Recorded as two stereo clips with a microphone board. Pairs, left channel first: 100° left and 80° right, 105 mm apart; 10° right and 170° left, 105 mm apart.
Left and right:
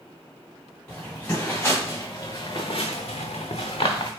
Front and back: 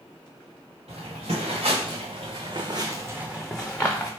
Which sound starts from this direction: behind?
Footsteps, at 0.9 s.